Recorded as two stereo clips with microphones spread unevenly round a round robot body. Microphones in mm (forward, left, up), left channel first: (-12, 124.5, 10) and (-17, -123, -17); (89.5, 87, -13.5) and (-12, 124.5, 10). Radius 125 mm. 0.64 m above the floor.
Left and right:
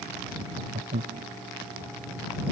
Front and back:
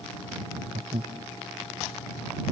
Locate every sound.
0.4 s laughter: 150° right